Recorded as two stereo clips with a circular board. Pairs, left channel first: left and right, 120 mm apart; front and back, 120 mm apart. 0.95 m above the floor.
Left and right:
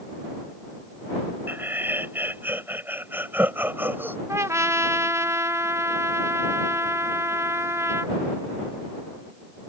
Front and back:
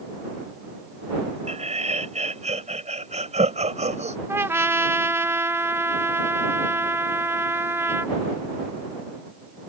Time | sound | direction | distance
1.5 | laughter | 165° right | ?
4.3 | a trumpet | 130° right | ?